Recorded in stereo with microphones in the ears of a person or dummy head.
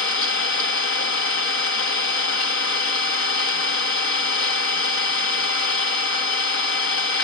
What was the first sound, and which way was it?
An engine running, 50° left (ahead or behind).